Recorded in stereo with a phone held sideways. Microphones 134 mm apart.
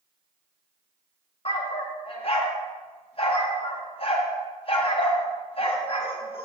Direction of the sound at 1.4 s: 45° left (ahead or behind).